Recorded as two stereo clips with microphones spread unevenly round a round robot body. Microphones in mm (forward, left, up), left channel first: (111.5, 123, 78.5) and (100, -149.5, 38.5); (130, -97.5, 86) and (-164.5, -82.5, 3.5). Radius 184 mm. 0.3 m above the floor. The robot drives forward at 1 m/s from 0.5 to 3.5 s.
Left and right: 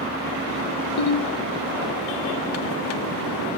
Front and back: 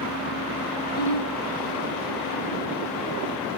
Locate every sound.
1.0 s a ringtone: 65° left, 1.0 m; by 1.3 s 90° left, 1.0 m